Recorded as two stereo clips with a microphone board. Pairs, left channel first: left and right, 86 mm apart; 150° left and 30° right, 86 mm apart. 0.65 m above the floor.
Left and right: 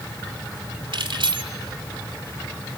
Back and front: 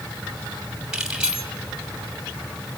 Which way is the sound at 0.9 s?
110° right.